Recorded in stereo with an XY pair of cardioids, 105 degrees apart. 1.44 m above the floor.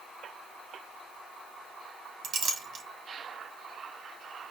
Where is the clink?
65° right, 1.5 m.